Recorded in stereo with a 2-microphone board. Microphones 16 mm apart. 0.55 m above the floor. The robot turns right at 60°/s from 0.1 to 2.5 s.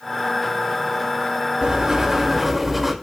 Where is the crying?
I don't hear crying.